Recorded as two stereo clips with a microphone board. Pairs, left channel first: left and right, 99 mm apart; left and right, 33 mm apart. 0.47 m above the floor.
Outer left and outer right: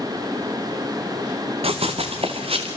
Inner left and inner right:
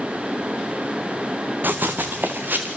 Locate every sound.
1.6 s running footsteps: 75° right (ahead or behind), 1.8 m; by 2.7 s 70° right (ahead or behind), 2.5 m